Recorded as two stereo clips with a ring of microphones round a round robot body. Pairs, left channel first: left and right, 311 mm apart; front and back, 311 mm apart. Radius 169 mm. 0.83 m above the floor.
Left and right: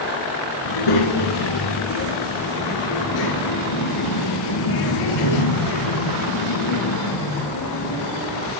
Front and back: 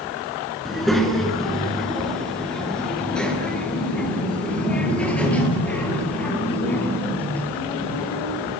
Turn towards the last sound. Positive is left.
turn(degrees=85)